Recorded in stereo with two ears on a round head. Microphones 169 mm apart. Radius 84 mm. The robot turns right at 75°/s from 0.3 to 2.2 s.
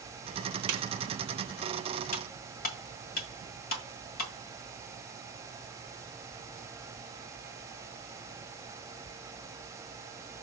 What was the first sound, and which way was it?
A snare drum, 85° right.